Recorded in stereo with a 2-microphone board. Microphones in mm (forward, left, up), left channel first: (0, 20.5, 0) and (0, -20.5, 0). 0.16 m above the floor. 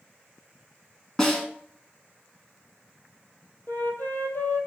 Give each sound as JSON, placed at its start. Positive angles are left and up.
{"t": 1.2, "sound": "a snare drum", "side_deg": 10, "distance_m": 1.0}
{"t": 3.7, "sound": "a flute", "side_deg": 60, "distance_m": 0.9}